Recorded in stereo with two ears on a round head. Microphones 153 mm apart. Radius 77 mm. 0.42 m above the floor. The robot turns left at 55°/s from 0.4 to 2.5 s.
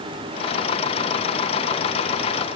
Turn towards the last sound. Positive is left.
No sound to turn to.